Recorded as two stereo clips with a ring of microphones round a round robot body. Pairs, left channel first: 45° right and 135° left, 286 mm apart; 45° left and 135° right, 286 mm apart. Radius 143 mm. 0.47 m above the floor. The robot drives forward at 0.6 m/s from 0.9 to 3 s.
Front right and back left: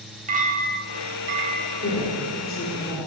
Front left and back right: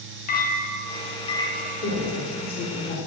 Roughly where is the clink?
Left.